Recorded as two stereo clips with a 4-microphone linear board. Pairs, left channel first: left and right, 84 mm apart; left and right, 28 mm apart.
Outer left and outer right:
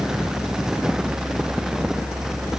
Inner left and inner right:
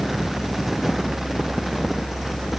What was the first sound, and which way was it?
Only background noise.